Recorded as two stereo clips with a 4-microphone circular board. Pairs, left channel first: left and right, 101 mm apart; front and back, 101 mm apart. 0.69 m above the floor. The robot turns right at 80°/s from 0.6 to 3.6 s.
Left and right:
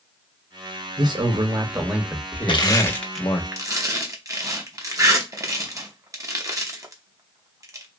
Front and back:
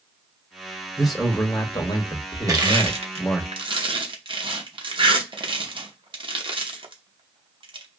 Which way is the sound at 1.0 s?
100° right.